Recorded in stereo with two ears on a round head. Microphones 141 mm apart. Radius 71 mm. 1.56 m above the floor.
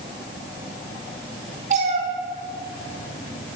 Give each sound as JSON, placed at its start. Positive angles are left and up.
{"t": 1.7, "sound": "a cat meowing", "side_deg": -50, "distance_m": 3.0}